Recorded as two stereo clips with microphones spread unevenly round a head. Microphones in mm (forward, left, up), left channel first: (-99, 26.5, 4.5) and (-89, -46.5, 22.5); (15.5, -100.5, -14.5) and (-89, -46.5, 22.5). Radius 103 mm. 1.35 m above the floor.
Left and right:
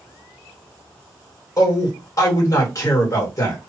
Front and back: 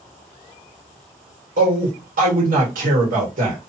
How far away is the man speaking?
About 1.8 m.